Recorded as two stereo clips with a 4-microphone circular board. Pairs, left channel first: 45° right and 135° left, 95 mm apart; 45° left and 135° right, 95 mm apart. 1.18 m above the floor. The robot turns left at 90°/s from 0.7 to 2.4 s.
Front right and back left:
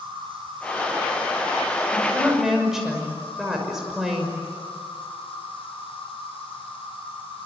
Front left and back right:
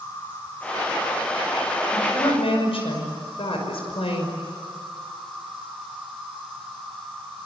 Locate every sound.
0.0 s an insect: 115° left, 9.5 m; by 7.5 s 40° right, 9.5 m
1.9 s a woman speaking: 95° left, 6 m; by 4.4 s 50° left, 6 m